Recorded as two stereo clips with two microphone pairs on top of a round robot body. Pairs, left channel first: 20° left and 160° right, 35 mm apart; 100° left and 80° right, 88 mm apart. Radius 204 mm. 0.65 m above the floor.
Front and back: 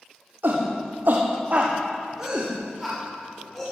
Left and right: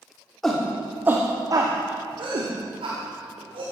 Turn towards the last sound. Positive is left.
turn(degrees=-65)